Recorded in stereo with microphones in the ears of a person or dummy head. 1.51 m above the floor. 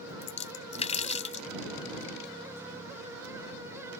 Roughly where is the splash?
Left.